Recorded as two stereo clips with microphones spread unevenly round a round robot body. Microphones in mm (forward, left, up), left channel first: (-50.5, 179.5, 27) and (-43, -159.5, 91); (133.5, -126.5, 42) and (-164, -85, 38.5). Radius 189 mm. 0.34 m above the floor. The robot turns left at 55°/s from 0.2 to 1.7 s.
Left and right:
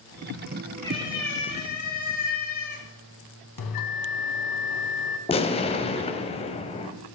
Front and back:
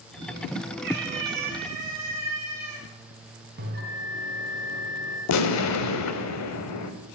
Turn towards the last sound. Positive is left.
turn(degrees=25)